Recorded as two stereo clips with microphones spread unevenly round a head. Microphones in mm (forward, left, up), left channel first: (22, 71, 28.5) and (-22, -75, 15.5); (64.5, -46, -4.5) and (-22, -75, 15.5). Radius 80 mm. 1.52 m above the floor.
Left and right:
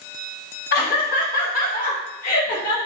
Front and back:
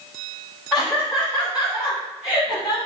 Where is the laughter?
105° left, 1.2 m; by 2.8 s 115° left, 2.5 m.